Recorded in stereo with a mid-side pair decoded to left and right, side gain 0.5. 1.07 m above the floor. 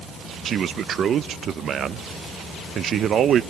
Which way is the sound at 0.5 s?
55° right.